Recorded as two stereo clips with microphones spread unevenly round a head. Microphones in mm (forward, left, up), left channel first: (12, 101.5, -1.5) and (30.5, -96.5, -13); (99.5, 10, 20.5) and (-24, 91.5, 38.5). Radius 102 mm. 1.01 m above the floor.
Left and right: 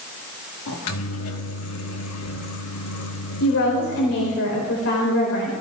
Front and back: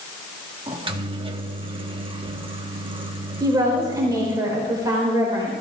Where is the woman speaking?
80° left, 4.5 m.